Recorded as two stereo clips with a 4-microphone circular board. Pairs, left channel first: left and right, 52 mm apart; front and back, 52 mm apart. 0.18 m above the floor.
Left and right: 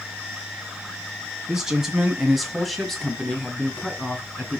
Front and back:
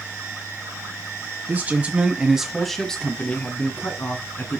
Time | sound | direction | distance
1.5 | a man speaking | 165° right | 2.0 m